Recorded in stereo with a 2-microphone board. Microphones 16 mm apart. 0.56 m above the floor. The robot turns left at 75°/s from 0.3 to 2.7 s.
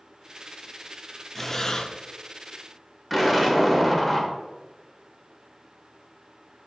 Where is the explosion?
5° right (ahead or behind), 1.3 m.